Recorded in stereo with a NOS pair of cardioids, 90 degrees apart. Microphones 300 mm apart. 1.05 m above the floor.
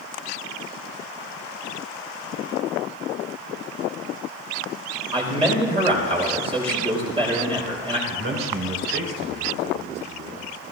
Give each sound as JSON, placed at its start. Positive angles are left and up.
{"t": 5.1, "sound": "a man speaking", "azimuth_deg": -20, "distance_m": 4.5}
{"t": 8.1, "sound": "a man speaking", "azimuth_deg": -40, "distance_m": 3.5}